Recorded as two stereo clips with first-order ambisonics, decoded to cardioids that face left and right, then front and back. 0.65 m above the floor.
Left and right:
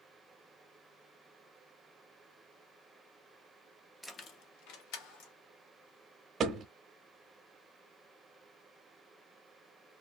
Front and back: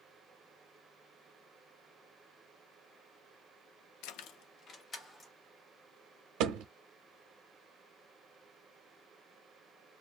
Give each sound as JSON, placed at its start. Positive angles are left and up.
{"t": 4.0, "sound": "keys jangling", "azimuth_deg": 5, "distance_m": 0.5}
{"t": 6.4, "sound": "a thud", "azimuth_deg": -155, "distance_m": 0.7}